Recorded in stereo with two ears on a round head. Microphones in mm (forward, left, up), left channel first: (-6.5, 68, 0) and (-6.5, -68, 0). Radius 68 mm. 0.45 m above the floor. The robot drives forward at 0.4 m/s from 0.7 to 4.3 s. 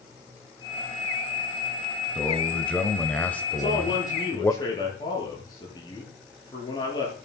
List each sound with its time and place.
2.1 s a man speaking: 10° left (ahead or behind), 2 m
3.5 s a man speaking: 25° left (ahead or behind), 8.5 m